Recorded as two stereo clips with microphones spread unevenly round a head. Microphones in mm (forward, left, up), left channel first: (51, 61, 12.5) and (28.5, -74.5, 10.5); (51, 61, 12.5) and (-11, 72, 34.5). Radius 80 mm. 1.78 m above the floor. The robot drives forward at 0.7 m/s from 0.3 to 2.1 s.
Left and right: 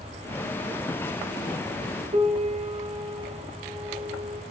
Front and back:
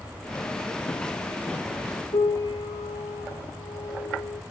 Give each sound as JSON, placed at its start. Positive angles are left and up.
{"t": 2.1, "sound": "a piano", "azimuth_deg": -55, "distance_m": 2.5}